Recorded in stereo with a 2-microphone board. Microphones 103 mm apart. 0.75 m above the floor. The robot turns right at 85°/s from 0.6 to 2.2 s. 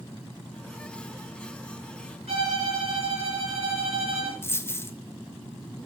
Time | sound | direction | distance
2.3 | a violin | 70° right (ahead or behind) | 2.5 m
4.4 | a dropped coin | 20° left (ahead or behind) | 0.5 m